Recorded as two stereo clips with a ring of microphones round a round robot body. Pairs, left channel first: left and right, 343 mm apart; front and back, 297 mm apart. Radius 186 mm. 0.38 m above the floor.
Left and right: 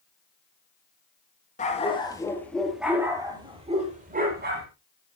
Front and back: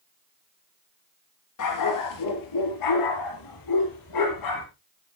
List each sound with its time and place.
1.6 s a dog barking: 20° left, 3 m; by 4.7 s 30° right, 4.5 m